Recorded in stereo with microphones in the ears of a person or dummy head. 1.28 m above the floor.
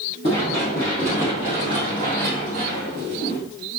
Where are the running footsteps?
15° left (ahead or behind), 1.3 m; by 3.4 s 40° right (ahead or behind), 1.9 m.